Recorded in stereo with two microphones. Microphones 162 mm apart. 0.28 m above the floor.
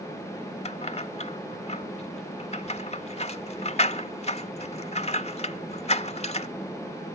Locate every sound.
0.7 s keys jangling: 40° left (ahead or behind), 0.7 m